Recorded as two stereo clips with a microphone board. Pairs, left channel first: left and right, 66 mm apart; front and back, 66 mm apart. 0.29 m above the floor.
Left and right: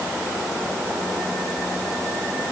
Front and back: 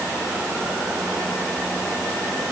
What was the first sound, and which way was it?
Only background noise.